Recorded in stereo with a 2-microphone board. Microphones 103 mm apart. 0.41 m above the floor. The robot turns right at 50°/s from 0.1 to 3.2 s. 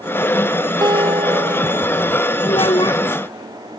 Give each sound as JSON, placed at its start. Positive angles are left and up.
{"t": 0.8, "sound": "a guitar", "azimuth_deg": -140}
{"t": 2.5, "sound": "a child speaking", "side_deg": 70}